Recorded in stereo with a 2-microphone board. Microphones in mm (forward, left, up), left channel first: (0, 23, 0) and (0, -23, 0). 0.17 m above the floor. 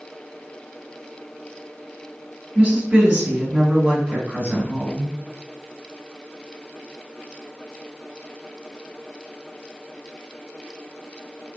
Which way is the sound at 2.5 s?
30° right (ahead or behind).